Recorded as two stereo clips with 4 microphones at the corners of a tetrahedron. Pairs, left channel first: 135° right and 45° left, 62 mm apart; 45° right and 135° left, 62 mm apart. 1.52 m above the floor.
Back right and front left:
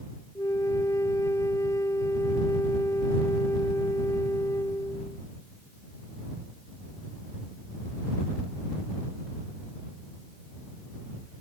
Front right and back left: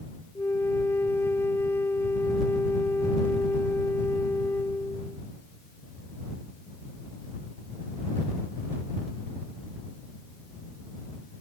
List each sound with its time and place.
0.3 s a flute: 95° right